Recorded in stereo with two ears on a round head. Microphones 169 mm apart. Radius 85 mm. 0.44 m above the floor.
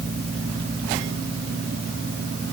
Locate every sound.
Only background noise.